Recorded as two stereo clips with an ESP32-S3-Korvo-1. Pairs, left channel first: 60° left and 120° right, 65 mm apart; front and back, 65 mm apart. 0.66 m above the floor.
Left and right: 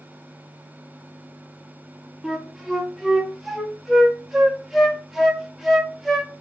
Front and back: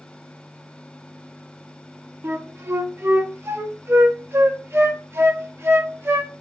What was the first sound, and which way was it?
A flute, 155° left.